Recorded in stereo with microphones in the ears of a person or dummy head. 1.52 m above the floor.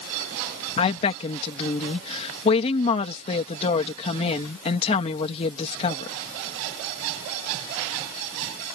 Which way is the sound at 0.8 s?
35° left (ahead or behind).